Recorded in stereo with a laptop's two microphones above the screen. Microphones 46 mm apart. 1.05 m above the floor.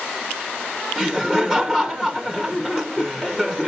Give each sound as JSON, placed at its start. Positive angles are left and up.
{"t": 1.0, "sound": "laughter", "side_deg": 5, "distance_m": 1.0}